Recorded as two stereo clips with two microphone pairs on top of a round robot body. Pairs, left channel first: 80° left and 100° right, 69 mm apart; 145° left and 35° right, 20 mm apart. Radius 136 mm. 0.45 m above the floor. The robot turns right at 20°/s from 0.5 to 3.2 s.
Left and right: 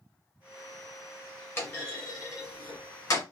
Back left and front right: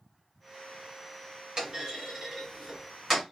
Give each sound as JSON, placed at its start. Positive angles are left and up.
{"t": 1.6, "sound": "a clunk", "azimuth_deg": 20, "distance_m": 1.9}